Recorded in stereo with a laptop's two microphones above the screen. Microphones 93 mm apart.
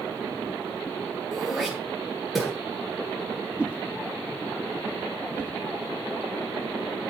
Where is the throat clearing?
5° right (ahead or behind), 8.5 m.